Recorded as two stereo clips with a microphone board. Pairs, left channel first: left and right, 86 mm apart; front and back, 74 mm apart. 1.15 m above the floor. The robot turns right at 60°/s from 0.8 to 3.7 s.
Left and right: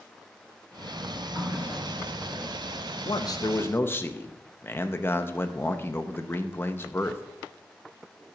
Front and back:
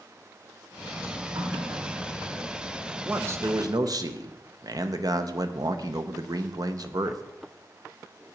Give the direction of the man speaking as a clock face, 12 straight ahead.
8 o'clock.